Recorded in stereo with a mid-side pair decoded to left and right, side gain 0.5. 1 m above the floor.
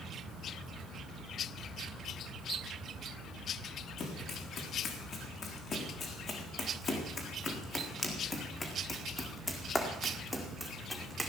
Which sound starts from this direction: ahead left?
Running footsteps, at 4.0 s.